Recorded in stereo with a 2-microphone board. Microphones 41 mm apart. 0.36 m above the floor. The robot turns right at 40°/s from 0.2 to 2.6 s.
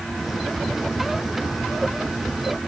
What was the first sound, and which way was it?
Only background noise.